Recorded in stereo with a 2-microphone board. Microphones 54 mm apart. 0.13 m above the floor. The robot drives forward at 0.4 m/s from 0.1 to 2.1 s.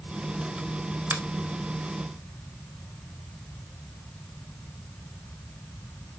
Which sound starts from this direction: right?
A finger snap, at 1.1 s.